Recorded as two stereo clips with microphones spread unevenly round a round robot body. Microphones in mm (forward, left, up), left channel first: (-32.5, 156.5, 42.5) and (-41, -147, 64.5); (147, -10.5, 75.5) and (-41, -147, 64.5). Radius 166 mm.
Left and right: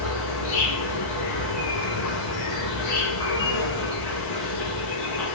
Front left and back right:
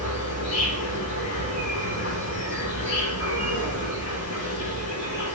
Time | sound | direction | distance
0.0 | an insect | 75° left | 6 m